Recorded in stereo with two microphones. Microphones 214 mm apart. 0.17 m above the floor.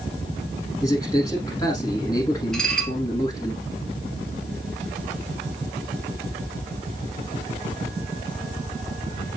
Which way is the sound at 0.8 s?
15° left (ahead or behind).